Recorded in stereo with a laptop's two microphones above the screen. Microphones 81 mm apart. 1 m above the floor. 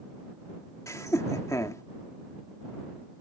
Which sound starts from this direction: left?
Laughter, at 0.9 s.